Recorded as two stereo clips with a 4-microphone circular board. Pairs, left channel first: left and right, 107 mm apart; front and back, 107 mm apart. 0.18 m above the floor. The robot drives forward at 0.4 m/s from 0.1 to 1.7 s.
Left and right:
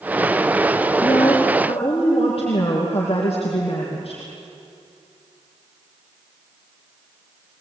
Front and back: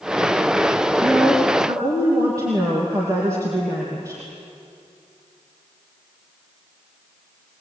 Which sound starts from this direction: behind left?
A woman speaking, at 1.0 s.